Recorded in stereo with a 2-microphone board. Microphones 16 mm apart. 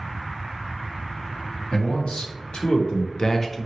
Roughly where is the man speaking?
Left.